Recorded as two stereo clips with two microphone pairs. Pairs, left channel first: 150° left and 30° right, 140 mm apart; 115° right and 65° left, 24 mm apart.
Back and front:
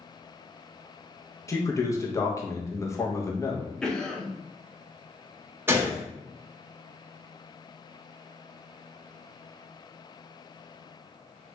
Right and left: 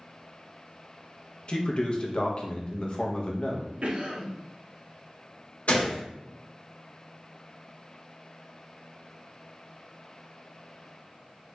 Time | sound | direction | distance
1.5 | a man speaking | 145° right | 0.6 m
3.8 | a cough | 70° left | 0.7 m
5.7 | a gunshot | 100° right | 0.8 m